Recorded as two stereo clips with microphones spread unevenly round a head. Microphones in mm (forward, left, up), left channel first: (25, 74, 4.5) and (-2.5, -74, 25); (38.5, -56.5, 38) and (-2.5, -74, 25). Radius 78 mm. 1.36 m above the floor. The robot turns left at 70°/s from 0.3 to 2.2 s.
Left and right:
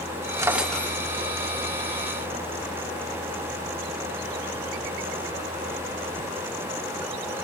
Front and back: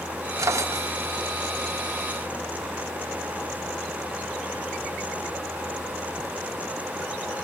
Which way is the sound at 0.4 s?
165° right.